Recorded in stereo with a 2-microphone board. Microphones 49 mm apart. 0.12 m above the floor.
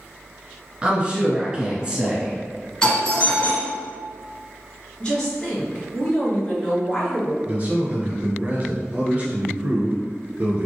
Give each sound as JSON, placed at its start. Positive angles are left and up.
{"t": 0.8, "sound": "a woman speaking", "side_deg": -20, "distance_m": 1.3}
{"t": 2.8, "sound": "a doorbell", "side_deg": 20, "distance_m": 1.7}
{"t": 5.0, "sound": "a woman speaking", "side_deg": 20, "distance_m": 2.0}
{"t": 7.5, "sound": "a man speaking", "side_deg": -30, "distance_m": 1.8}